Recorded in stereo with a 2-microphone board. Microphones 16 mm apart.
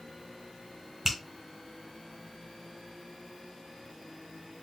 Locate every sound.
1.1 s a finger snap: 30° right (ahead or behind), 1.7 m